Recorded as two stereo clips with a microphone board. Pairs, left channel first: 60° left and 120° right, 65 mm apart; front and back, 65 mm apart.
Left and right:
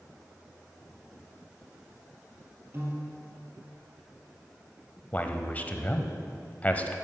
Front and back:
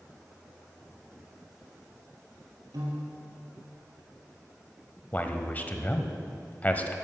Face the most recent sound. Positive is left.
turn(degrees=25)